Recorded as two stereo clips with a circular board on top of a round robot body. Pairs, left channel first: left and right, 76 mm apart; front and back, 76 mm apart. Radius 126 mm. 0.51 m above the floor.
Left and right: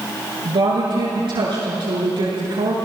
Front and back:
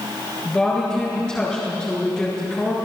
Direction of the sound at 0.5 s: 80° right.